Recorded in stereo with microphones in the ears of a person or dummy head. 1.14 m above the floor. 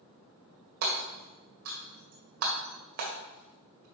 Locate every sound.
0.8 s hammering: 50° right (ahead or behind), 1.8 m